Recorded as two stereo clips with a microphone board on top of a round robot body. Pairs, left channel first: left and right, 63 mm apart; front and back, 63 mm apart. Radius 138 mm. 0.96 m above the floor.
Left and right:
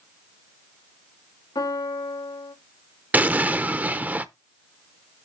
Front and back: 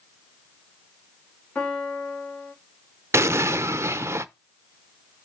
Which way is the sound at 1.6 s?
75° left.